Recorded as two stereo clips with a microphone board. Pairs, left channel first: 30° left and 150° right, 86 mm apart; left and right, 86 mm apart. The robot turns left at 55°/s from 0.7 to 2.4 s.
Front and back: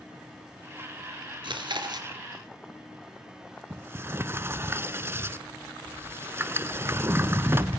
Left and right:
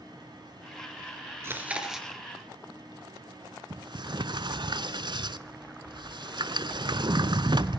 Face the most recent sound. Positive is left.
turn(degrees=-90)